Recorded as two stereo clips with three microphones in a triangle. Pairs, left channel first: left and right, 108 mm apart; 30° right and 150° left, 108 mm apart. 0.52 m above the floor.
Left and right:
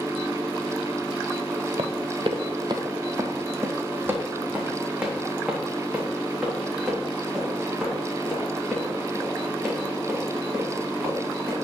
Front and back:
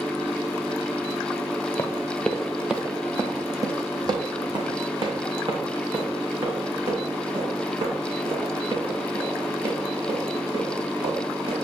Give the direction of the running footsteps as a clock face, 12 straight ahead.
3 o'clock.